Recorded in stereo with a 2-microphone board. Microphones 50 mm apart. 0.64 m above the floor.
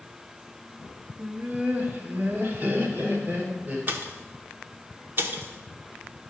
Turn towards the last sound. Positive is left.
turn(degrees=-45)  # may be behind; listen again after turning